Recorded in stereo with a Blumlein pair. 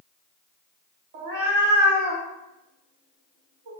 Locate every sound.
1.1 s a cat meowing: 55° right, 0.7 m